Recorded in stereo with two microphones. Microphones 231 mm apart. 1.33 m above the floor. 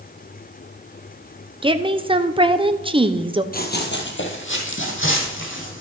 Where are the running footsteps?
40° left (ahead or behind), 2.0 m; by 5.8 s 55° left (ahead or behind), 4 m.